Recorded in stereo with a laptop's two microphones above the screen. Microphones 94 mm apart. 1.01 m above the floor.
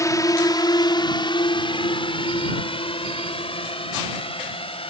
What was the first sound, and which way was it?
A drone, 35° left (ahead or behind).